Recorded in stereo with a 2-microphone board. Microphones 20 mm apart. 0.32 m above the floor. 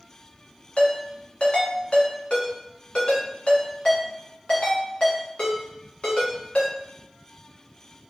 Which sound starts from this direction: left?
A ringtone, at 0.8 s.